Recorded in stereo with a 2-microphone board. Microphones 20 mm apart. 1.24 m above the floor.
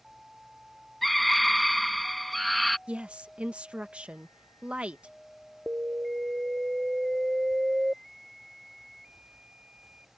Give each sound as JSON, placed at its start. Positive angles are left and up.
{"t": 1.0, "sound": "a scream", "side_deg": 5}
{"t": 2.9, "sound": "a woman speaking", "side_deg": -80}
{"t": 5.7, "sound": "an alarm", "side_deg": -80}